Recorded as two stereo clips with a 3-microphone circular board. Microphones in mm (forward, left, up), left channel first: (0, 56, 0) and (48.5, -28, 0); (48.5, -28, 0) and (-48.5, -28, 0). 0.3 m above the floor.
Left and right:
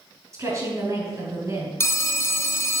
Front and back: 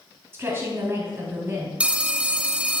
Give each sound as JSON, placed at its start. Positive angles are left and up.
{"t": 0.3, "sound": "a woman speaking", "azimuth_deg": -115, "distance_m": 3.5}
{"t": 1.8, "sound": "a phone ringing", "azimuth_deg": 120, "distance_m": 0.6}